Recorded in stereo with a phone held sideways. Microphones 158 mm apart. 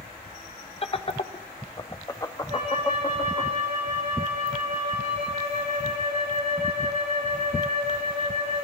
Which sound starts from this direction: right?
A flute, at 2.5 s.